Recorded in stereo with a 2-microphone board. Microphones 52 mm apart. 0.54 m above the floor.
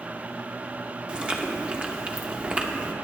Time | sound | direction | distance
1.1 | chewing | 20° right (ahead or behind) | 0.9 m